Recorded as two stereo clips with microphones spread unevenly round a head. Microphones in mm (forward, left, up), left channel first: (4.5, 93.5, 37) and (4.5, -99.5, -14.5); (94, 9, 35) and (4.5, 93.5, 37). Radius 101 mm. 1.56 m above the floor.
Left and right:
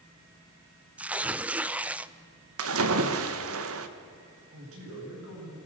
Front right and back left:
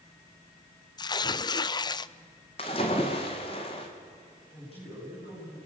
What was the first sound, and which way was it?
Tearing paper, 5° left.